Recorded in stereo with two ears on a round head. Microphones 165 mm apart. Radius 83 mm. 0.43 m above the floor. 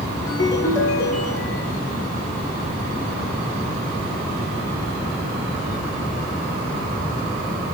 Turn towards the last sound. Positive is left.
turn(degrees=20)  # may be behind; listen again after turning